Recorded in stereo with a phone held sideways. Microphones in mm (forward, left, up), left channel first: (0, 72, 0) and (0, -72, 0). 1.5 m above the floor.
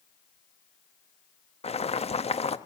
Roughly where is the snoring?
No snoring in this recording.